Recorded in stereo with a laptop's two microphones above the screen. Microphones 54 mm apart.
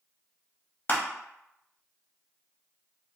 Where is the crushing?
35° left (ahead or behind), 0.7 m.